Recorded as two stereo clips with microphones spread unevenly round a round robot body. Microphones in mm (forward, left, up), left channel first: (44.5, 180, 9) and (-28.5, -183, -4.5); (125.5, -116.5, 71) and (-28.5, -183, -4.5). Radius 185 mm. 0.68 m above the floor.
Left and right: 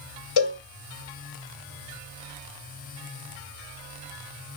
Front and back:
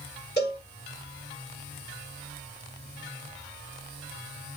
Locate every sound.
0.4 s a cowbell: 85° left, 1.7 m